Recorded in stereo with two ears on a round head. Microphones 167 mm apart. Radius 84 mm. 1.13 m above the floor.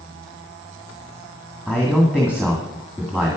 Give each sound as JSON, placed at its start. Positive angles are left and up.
{"t": 1.7, "sound": "a man speaking", "side_deg": -10, "distance_m": 2.0}